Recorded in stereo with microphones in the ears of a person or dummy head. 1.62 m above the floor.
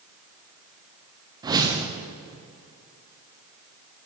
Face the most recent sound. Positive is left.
turn(degrees=-15)  # may be behind; listen again after turning